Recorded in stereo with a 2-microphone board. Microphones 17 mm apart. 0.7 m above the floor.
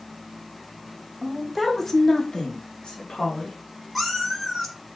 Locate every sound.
1.2 s a woman speaking: 15° right (ahead or behind), 1.0 m; by 3.6 s 70° left (ahead or behind), 2 m
4.0 s a cat meowing: 5° left (ahead or behind), 1.2 m